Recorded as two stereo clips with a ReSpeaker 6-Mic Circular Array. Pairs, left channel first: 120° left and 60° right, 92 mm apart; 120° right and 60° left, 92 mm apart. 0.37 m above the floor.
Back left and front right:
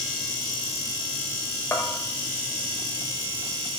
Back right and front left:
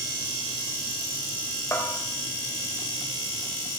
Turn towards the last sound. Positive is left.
turn(degrees=180)